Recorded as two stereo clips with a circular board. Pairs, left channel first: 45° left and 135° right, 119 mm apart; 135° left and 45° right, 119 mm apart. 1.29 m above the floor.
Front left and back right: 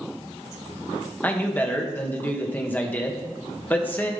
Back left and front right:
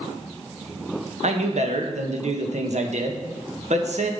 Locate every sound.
1.2 s a man speaking: 30° right, 1.6 m